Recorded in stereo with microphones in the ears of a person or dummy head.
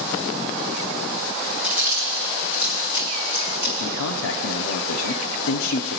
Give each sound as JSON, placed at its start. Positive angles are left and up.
{"t": 1.6, "sound": "chewing", "side_deg": -5, "distance_m": 1.4}
{"t": 3.8, "sound": "a man speaking", "side_deg": 75, "distance_m": 0.5}